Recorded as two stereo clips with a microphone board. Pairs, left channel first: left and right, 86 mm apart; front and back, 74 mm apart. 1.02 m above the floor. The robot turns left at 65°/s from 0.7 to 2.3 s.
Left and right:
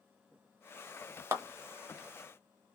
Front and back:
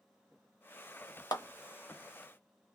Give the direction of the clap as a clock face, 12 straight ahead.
1 o'clock.